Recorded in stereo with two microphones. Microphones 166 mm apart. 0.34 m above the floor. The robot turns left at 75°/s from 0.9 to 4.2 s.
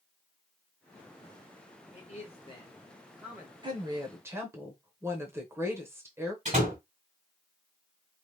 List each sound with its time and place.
1.9 s a man speaking: 90° left, 1.4 m; by 3.5 s 30° right, 1.4 m
3.6 s a woman speaking: 30° right (ahead or behind), 0.9 m; by 6.3 s 15° right (ahead or behind), 0.9 m
6.5 s a door slam: 50° right (ahead or behind), 2 m